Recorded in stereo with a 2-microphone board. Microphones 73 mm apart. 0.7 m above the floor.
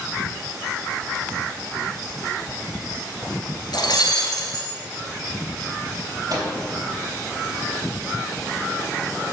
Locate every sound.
3.7 s breaking glass: 70° left (ahead or behind), 1.5 m
6.3 s a microwave: 55° right (ahead or behind), 3.5 m